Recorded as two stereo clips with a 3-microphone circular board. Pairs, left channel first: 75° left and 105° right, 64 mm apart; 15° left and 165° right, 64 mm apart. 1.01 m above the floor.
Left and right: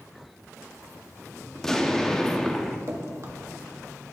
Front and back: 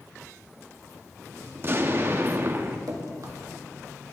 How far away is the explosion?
About 0.6 m.